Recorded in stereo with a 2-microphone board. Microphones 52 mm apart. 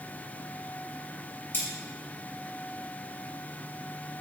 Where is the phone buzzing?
No phone buzzing in this recording.